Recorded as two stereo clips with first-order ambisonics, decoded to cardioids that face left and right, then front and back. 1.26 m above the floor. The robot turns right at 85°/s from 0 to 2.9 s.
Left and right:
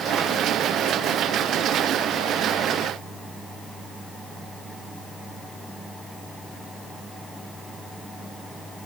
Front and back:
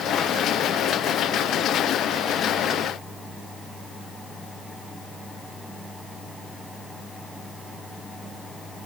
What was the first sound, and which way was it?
Only background noise.